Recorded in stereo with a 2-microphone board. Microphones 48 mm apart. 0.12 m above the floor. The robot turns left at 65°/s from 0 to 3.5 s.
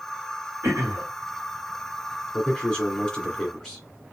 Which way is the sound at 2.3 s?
25° left (ahead or behind).